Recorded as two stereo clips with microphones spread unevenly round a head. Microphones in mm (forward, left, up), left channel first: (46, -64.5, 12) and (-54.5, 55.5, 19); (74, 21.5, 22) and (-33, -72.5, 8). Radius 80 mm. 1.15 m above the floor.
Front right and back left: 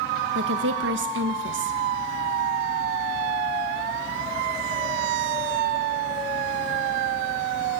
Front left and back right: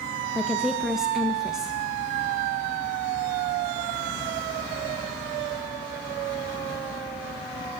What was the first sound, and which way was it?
A woman speaking, 135° left.